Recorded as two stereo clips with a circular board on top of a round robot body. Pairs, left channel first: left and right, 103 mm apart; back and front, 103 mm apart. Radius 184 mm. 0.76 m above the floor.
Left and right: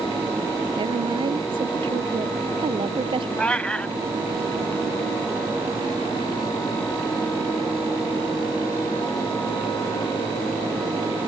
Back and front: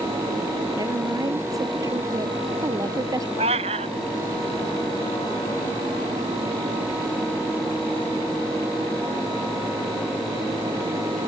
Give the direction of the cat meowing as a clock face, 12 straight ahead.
12 o'clock.